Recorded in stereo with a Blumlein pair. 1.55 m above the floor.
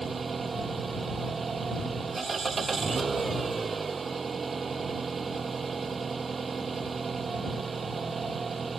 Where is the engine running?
15° right.